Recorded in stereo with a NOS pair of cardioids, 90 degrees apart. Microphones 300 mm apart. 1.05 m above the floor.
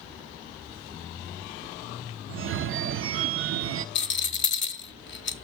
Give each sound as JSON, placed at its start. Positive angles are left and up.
{"t": 2.3, "sound": "a phone ringing", "azimuth_deg": -45, "distance_m": 0.5}
{"t": 4.0, "sound": "a rattle", "azimuth_deg": 40, "distance_m": 0.8}